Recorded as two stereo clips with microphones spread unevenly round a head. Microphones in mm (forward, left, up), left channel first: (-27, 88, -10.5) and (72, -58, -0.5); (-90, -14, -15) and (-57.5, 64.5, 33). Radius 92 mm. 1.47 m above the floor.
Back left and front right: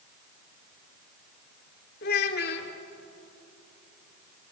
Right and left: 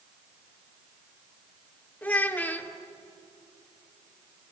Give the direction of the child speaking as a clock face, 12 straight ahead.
6 o'clock.